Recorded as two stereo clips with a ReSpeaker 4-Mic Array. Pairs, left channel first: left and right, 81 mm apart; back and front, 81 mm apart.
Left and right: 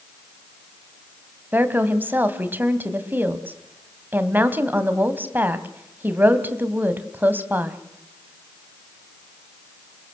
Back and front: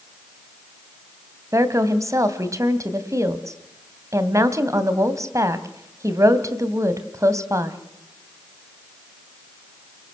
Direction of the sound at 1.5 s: 30° right.